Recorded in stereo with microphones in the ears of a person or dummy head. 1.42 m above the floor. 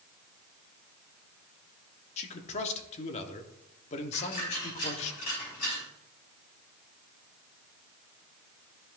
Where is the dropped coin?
50° left (ahead or behind), 4.5 m.